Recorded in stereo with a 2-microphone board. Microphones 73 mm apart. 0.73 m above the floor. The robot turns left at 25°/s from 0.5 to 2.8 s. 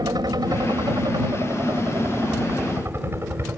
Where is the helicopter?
85° right; by 3.6 s 140° right.